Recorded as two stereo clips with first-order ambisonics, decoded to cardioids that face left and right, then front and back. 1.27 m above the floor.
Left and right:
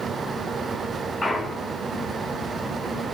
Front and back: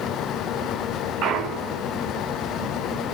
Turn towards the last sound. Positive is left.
turn(degrees=170)